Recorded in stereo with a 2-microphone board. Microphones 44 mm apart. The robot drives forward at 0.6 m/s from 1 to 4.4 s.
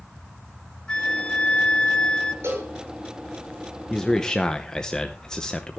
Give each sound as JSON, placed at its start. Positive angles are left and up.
{"t": 0.9, "sound": "a flute", "side_deg": 20, "distance_m": 0.8}
{"t": 2.4, "sound": "a cowbell", "side_deg": -75, "distance_m": 6.5}
{"t": 3.9, "sound": "a man speaking", "side_deg": 10, "distance_m": 1.0}